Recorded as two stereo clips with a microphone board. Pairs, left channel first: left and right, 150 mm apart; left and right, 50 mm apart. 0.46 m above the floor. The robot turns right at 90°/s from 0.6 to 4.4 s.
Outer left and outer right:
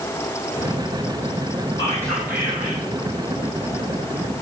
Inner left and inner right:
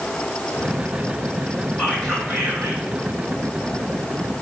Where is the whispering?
145° left, 5 m; by 2.8 s 120° right, 5 m.